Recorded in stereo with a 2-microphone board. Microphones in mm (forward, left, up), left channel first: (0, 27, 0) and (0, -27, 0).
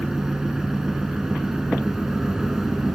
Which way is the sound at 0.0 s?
10° right (ahead or behind).